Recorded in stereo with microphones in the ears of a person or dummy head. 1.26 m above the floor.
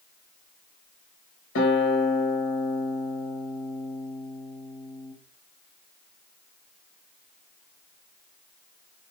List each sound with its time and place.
1.6 s a guitar: 60° left (ahead or behind), 1.2 m